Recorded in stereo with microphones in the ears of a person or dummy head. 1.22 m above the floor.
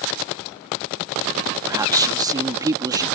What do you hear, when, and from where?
1.7 s a man speaking: 25° right (ahead or behind)